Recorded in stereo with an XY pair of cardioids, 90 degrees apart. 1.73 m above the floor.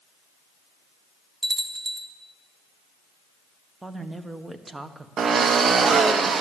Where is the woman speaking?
20° right, 1.3 m.